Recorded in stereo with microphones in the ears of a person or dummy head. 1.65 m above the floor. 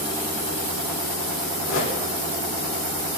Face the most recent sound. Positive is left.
turn(degrees=85)